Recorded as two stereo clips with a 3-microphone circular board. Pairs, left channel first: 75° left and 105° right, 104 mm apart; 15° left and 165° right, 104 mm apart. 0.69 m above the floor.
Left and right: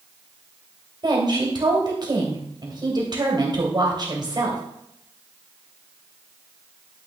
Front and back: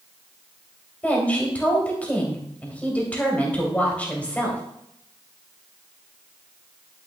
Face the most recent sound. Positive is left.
turn(degrees=-60)